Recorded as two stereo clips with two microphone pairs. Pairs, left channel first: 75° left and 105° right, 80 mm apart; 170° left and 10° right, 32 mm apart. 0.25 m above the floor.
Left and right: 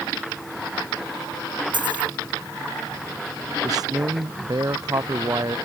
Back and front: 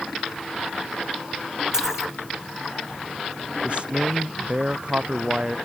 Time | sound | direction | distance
1.7 | a dropped coin | 85° right | ?
3.6 | a man speaking | 65° right | ?